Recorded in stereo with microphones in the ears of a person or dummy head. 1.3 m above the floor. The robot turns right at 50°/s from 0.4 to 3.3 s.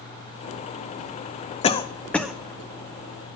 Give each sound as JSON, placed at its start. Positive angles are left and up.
{"t": 1.6, "sound": "a cough", "side_deg": 35, "distance_m": 0.5}